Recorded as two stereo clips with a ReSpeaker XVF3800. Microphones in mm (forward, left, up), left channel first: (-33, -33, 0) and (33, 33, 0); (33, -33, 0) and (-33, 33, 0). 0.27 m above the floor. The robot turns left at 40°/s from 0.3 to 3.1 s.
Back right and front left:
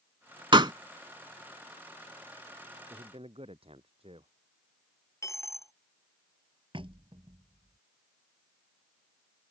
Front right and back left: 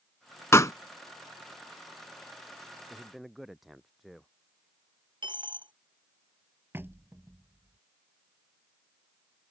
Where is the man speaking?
55° left; by 4.3 s 45° left.